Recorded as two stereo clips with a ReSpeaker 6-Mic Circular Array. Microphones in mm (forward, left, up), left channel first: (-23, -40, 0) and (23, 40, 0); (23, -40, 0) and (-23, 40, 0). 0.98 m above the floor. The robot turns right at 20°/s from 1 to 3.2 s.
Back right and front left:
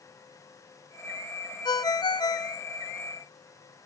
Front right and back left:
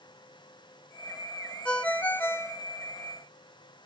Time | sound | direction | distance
1.6 | a ringtone | 135° right | 0.6 m